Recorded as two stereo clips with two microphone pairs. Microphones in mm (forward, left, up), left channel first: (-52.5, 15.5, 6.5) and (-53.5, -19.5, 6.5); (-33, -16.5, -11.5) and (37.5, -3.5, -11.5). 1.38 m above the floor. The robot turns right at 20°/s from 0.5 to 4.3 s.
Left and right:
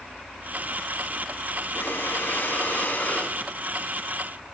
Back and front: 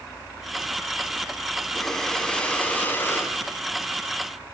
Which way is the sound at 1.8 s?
105° left.